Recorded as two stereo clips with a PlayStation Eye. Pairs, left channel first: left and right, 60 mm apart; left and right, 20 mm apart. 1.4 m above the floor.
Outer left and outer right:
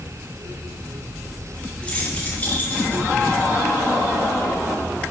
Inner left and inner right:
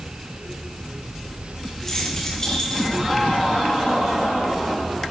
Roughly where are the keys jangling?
Left.